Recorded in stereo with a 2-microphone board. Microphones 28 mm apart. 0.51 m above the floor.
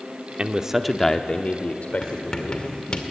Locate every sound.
0.4 s a man speaking: 35° right (ahead or behind), 1.0 m; by 3.0 s 70° left (ahead or behind), 2.5 m
2.0 s writing: 35° left (ahead or behind), 2.0 m